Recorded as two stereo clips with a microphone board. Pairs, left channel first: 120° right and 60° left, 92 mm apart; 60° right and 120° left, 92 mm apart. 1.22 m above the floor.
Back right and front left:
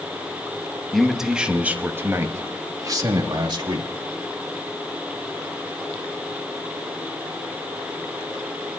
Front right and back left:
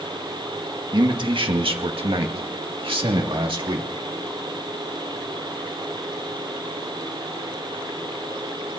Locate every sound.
0.9 s a man speaking: 150° left, 1.9 m; by 3.9 s 95° left, 3 m